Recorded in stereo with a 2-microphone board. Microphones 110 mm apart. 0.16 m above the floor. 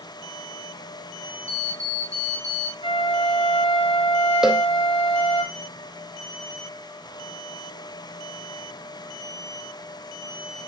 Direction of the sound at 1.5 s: 30° right (ahead or behind).